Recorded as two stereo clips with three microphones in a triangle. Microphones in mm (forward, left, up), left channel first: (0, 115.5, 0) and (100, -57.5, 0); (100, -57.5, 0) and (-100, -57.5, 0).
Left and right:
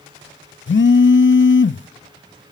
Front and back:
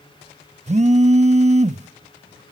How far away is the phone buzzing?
About 0.6 m.